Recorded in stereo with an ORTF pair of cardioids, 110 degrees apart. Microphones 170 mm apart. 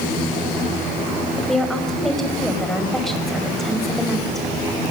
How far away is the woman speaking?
About 5.5 m.